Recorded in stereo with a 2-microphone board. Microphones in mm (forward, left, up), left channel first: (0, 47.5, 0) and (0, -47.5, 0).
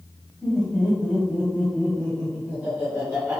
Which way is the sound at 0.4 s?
Centre (ahead or behind).